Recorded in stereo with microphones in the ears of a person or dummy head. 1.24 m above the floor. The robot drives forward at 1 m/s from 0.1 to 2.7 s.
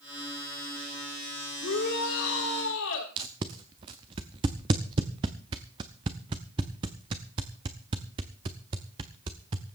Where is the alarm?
I don't hear an alarm.